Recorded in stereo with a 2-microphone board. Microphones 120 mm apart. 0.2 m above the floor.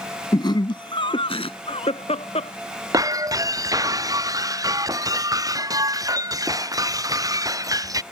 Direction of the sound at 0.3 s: 40° left (ahead or behind).